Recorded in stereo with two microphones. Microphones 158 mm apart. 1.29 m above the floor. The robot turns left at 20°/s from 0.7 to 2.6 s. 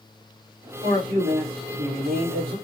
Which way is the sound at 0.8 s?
50° right.